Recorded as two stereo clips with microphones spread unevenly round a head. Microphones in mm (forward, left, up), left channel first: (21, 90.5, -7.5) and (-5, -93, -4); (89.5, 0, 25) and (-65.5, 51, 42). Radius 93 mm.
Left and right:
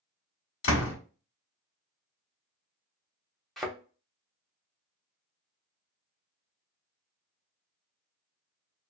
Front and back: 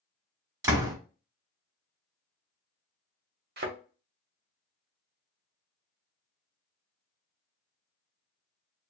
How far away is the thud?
About 0.9 m.